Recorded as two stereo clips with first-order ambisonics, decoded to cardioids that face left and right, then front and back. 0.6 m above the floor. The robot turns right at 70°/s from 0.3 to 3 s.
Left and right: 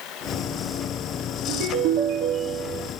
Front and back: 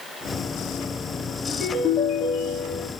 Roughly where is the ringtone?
Right.